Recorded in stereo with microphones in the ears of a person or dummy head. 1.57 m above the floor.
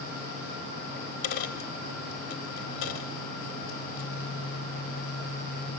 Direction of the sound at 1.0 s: 30° left (ahead or behind).